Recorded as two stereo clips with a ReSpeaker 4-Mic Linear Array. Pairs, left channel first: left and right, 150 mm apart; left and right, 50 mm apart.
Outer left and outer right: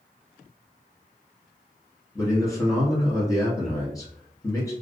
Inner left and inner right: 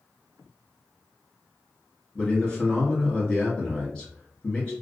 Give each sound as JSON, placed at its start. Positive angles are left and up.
{"t": 2.1, "sound": "a man speaking", "side_deg": 25, "distance_m": 1.1}